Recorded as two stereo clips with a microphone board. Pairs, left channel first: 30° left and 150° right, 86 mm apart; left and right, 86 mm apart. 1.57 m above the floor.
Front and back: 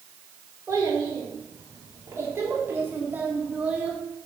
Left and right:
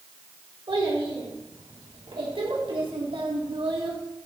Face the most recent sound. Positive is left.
turn(degrees=-75)